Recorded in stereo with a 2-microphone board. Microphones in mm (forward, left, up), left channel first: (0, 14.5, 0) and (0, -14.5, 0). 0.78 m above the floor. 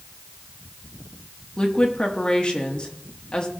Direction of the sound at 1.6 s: 30° left (ahead or behind).